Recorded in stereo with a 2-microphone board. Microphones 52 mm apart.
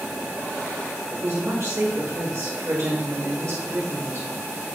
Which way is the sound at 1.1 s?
70° right (ahead or behind).